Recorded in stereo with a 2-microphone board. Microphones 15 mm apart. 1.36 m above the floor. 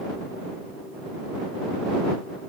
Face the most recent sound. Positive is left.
No sound to turn to.